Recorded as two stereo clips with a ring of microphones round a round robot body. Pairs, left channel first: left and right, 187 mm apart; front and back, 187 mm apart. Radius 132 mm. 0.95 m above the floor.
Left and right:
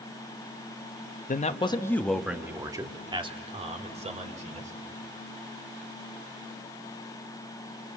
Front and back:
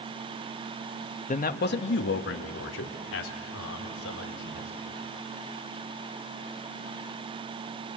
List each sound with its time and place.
1.3 s a man speaking: 45° left, 1.3 m; by 4.7 s 40° right, 4 m